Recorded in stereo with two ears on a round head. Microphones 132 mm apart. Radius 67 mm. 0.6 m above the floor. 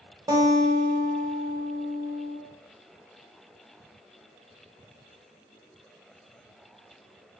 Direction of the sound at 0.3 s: 25° right (ahead or behind).